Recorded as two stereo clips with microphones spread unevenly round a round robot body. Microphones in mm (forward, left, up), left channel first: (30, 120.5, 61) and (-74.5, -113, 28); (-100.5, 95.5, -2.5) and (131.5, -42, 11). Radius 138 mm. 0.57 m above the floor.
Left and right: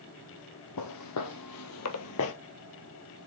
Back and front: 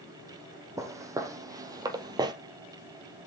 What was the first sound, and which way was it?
Footsteps, 45° left.